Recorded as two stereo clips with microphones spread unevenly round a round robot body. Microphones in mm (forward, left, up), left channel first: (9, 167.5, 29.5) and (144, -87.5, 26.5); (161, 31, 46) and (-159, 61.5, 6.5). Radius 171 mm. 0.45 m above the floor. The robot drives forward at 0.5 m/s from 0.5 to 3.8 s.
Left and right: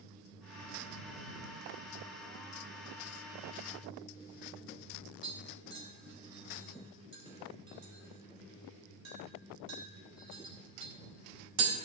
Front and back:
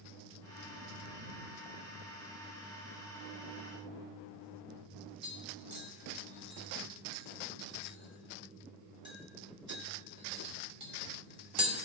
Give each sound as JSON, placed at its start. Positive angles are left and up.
{"t": 5.2, "sound": "tapping", "azimuth_deg": -115, "distance_m": 1.7}